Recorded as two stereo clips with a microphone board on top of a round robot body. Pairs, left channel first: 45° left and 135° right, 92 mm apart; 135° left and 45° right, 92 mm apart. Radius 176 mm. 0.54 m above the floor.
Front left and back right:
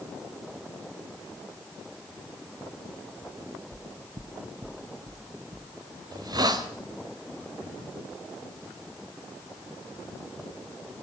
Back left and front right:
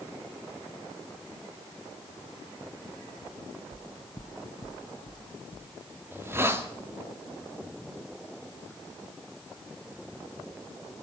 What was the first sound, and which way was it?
Footsteps, 75° right.